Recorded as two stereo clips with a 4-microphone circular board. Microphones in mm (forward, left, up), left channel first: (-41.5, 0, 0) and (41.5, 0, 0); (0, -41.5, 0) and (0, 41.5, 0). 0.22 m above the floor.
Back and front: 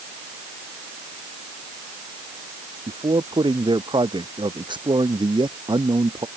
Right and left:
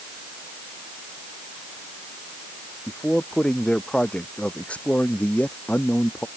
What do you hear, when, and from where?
2.9 s a man speaking: 10° right; by 6.3 s 20° right